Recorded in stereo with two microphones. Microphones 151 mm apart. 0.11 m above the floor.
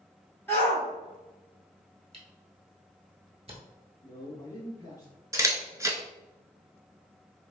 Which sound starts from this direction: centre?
A shout, at 0.5 s.